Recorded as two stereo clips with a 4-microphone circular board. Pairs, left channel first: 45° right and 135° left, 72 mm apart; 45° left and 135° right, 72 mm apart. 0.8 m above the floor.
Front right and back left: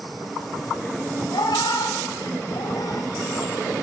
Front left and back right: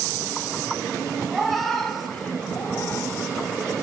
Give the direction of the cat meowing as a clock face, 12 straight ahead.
2 o'clock.